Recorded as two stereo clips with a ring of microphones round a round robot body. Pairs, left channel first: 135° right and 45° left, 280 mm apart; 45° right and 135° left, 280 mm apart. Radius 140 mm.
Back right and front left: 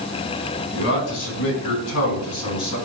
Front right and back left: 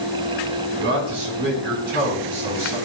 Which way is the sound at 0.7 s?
175° right.